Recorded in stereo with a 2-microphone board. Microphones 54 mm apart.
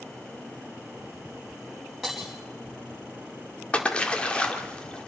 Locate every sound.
2.0 s breaking glass: 5° right (ahead or behind), 5 m
3.7 s a splash: 20° left (ahead or behind), 1.9 m